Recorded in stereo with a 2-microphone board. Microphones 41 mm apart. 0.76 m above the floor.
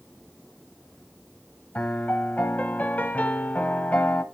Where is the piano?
40° left (ahead or behind), 1.0 m.